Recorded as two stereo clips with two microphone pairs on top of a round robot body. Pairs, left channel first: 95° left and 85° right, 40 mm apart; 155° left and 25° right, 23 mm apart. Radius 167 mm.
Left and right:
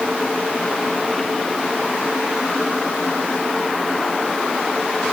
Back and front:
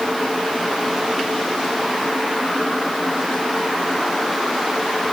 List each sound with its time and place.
Only background noise.